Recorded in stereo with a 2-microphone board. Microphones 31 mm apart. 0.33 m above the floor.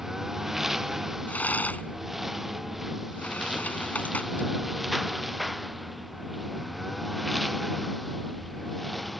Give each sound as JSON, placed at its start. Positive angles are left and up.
{"t": 0.0, "sound": "a lawn mower", "side_deg": -15}
{"t": 1.3, "sound": "a rattle", "side_deg": 70}